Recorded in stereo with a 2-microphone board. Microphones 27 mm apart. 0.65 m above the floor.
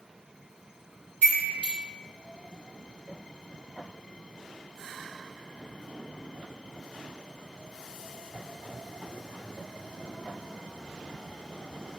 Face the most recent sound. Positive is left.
turn(degrees=55)  # may be behind; listen again after turning